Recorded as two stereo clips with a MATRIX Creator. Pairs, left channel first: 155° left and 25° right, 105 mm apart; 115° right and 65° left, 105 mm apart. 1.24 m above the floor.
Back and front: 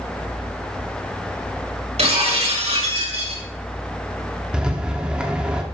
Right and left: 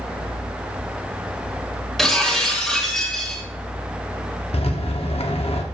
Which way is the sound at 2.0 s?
25° right.